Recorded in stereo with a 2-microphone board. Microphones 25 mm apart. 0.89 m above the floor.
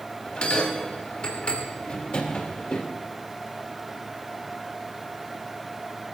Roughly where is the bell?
Left.